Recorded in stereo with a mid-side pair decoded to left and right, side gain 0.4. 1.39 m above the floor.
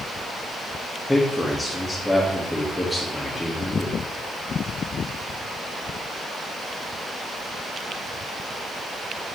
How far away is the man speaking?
About 2.0 m.